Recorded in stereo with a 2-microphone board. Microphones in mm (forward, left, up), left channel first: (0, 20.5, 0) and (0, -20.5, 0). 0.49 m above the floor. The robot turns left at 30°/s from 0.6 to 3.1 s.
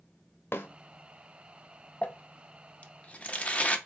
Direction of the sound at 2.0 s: 35° left (ahead or behind).